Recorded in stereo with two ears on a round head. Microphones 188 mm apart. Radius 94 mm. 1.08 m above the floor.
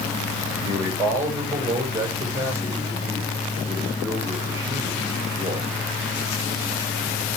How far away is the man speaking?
About 6 m.